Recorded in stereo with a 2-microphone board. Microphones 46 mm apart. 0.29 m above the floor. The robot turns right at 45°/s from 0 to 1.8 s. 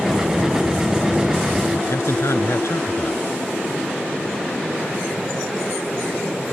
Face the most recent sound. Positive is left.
turn(degrees=75)  # may be behind; listen again after turning